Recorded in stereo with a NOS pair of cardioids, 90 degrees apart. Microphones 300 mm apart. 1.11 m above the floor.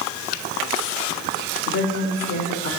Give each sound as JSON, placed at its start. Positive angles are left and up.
{"t": 1.7, "sound": "a woman speaking", "azimuth_deg": 45, "distance_m": 4.5}